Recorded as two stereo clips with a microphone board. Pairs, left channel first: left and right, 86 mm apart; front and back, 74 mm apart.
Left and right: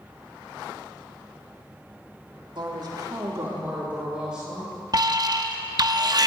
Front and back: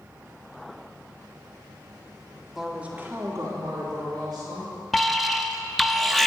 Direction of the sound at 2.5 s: 95° right.